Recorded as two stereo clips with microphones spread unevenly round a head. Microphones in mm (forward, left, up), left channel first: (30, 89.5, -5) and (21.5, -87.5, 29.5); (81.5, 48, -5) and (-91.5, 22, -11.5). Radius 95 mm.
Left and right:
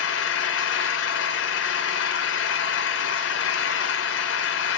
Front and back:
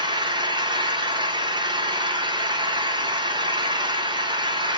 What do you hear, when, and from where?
0.0 s an engine running: 125° left, 0.7 m